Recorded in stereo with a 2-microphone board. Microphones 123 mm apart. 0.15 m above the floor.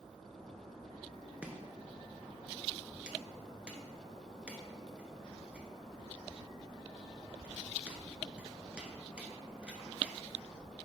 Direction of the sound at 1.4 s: 10° right (ahead or behind).